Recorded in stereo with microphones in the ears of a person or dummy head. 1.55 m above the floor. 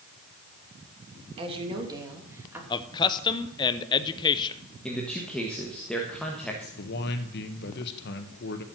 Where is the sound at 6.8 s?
65° left (ahead or behind), 1.6 m.